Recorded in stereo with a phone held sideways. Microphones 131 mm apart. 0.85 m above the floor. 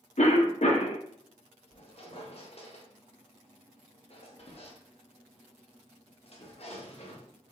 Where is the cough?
60° left (ahead or behind), 0.7 m.